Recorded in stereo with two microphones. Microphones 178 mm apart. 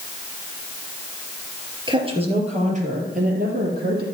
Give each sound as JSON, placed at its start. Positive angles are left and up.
{"t": 1.9, "sound": "a woman speaking", "side_deg": -25, "distance_m": 3.0}